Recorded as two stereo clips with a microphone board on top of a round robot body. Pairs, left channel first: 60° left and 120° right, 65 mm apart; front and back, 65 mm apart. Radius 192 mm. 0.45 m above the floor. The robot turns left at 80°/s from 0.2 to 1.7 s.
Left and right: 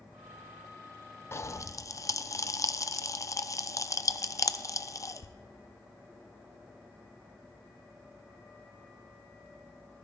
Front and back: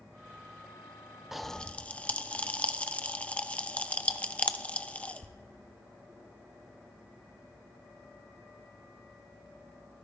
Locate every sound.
1.3 s a pop: 100° left, 0.7 m; by 5.4 s 65° left, 0.7 m